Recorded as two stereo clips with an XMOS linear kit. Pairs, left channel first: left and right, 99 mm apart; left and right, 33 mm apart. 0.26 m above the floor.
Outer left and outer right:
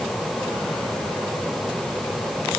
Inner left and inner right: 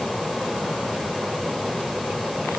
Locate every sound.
Only background noise.